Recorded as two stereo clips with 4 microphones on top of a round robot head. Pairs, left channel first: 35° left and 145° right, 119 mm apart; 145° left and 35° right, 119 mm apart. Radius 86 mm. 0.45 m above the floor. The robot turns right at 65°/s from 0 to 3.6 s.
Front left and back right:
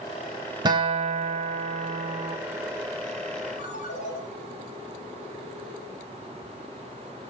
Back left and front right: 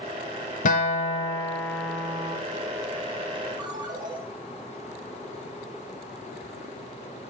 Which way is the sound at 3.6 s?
20° left.